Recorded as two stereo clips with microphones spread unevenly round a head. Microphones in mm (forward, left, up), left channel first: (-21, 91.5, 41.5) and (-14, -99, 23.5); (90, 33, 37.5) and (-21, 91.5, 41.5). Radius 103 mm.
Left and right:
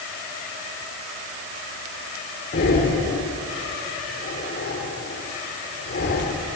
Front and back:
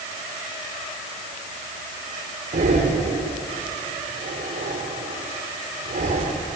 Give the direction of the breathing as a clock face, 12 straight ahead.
8 o'clock.